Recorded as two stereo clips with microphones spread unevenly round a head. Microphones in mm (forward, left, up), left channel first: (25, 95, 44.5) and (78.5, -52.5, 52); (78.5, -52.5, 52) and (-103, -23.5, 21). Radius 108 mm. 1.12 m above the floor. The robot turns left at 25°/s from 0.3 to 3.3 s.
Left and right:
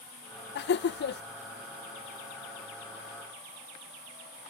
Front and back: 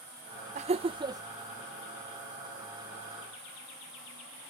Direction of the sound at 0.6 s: 115° left.